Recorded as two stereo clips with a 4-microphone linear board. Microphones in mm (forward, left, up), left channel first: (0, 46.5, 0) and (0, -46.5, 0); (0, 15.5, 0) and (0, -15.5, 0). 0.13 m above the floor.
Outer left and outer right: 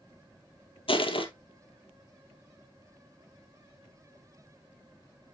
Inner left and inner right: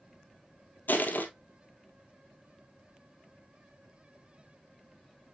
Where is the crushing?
70° left (ahead or behind), 1.0 m.